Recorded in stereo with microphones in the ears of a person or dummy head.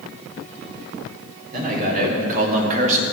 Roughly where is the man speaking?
Right.